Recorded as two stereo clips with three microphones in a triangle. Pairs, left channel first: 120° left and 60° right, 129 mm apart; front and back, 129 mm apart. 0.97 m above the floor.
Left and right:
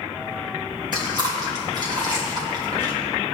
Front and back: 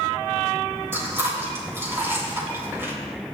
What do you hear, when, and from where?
0.9 s chewing: 110° right, 3 m